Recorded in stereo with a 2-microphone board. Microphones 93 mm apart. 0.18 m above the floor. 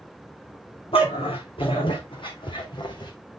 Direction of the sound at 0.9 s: 80° left.